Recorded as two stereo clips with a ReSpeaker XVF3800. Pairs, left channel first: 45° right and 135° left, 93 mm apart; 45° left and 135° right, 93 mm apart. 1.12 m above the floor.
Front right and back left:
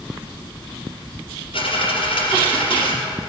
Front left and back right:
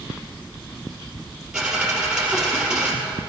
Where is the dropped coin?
55° right, 3.5 m.